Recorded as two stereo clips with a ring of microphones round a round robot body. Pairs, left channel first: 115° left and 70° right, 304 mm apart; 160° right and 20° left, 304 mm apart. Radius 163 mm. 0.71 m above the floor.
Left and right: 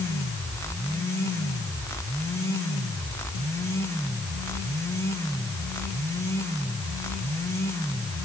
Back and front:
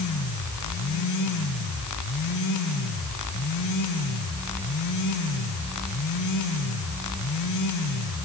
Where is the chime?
No chime in this recording.